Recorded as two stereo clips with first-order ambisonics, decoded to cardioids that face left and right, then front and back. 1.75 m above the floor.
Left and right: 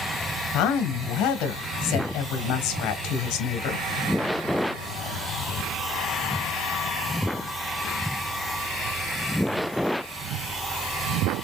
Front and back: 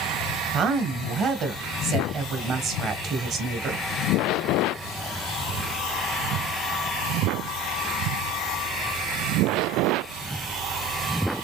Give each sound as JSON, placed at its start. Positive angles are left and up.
{"t": 0.5, "sound": "a woman speaking", "azimuth_deg": 125, "distance_m": 1.6}